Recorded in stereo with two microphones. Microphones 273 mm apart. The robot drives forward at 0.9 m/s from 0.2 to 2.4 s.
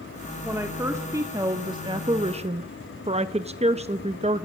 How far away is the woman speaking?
About 2 m.